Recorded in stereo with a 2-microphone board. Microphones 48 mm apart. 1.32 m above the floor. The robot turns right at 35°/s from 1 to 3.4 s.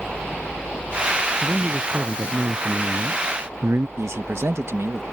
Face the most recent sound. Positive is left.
turn(degrees=-75)  # may be behind; listen again after turning